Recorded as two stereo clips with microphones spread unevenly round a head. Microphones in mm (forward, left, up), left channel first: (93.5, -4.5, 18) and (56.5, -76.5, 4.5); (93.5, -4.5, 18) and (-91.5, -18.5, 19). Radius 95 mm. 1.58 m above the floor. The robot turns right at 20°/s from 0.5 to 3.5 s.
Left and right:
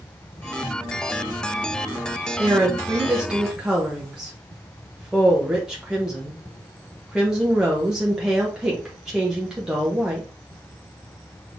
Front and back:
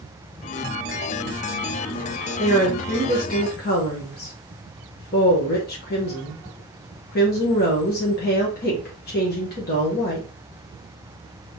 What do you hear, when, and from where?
2.4 s a woman speaking: 55° right, 1.1 m; by 10.3 s 30° right, 1.1 m